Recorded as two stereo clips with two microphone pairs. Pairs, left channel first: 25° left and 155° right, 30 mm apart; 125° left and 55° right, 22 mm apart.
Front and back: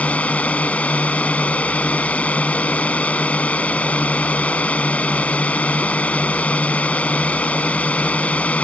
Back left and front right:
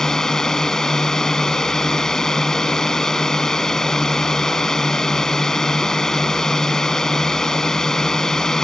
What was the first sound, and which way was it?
A drone, 60° left.